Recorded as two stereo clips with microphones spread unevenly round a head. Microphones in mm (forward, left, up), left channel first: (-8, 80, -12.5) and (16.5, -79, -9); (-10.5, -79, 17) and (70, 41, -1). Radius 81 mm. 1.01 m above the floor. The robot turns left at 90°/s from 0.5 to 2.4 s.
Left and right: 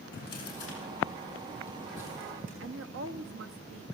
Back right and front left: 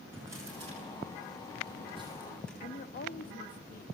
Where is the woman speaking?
95° right, 1.5 m.